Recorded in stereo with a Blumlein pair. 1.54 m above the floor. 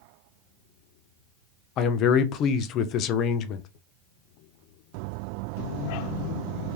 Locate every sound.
1.8 s a man speaking: 35° left, 0.5 m